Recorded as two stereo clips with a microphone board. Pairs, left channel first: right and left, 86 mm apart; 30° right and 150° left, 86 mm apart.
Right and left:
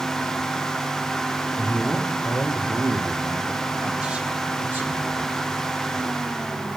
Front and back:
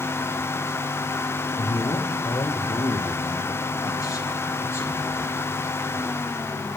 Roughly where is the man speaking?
Ahead right.